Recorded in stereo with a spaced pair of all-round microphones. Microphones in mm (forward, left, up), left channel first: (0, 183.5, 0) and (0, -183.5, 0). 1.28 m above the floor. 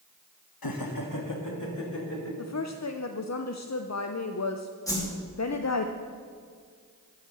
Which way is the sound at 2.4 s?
50° left (ahead or behind).